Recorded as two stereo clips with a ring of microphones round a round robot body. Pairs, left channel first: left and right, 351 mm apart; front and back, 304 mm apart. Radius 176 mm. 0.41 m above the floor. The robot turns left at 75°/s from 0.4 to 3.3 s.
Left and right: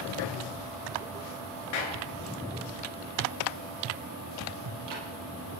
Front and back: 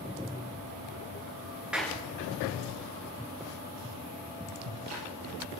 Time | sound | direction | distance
1.7 | a clap | 95° left | 5 m
4.6 | ticking | 130° right | 5 m